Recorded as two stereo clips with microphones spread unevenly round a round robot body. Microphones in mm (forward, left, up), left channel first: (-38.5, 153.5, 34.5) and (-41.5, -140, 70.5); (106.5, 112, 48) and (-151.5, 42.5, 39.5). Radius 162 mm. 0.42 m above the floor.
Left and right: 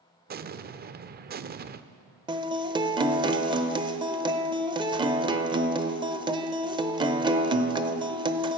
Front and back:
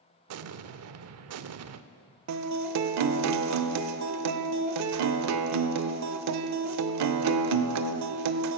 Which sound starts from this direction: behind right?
An explosion, at 0.3 s.